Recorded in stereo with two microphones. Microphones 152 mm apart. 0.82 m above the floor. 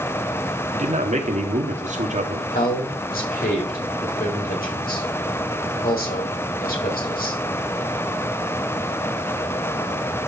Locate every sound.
0.7 s a man speaking: 55° right (ahead or behind), 1.9 m
2.5 s a man speaking: 75° left (ahead or behind), 4 m